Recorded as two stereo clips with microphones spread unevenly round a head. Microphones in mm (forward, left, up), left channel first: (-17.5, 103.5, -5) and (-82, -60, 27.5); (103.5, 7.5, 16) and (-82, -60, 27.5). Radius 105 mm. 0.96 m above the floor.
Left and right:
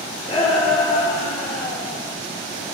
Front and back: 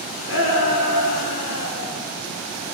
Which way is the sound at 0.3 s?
5° left.